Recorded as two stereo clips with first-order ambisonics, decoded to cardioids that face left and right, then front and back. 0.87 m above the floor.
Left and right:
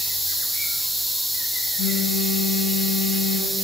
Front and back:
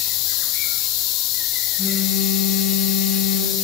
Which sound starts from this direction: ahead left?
A phone buzzing, at 1.8 s.